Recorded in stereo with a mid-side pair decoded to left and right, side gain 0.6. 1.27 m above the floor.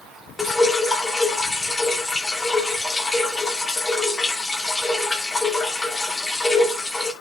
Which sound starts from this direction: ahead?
Dripping, at 0.4 s.